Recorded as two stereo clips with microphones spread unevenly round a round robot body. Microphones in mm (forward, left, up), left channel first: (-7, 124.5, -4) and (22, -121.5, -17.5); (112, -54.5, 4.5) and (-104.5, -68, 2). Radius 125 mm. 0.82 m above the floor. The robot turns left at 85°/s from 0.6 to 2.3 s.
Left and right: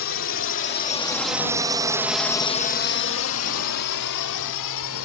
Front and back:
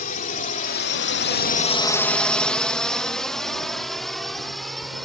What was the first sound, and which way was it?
A drone, 60° left.